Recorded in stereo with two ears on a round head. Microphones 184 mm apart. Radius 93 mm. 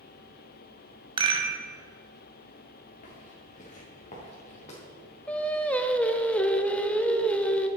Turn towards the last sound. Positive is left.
turn(degrees=5)  # may be behind; listen again after turning